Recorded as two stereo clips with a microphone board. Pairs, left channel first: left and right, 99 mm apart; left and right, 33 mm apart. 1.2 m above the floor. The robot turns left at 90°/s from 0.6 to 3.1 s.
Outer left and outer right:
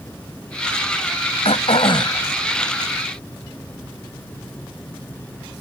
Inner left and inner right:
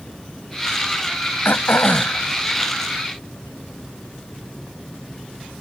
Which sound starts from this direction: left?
Throat clearing, at 1.4 s.